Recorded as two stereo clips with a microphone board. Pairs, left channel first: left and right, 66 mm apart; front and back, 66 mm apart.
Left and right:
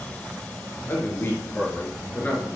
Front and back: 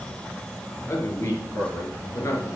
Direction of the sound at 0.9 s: 40° left.